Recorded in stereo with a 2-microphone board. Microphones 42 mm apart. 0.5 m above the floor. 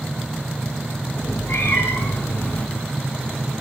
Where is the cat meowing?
70° left (ahead or behind), 3 m; by 2.7 s 40° left (ahead or behind), 1.1 m.